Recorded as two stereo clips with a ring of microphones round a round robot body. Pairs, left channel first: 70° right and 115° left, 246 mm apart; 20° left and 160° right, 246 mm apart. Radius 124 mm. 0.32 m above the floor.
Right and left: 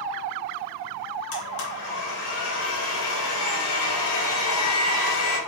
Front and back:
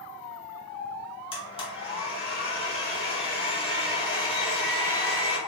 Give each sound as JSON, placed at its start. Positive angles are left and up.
{"t": 1.3, "sound": "a blender", "azimuth_deg": -45, "distance_m": 0.9}